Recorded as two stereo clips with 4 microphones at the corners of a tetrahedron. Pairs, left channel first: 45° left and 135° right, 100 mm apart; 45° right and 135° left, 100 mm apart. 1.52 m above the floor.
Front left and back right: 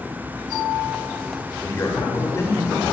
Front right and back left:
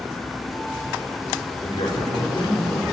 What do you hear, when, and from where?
1.6 s a man speaking: 15° right, 6 m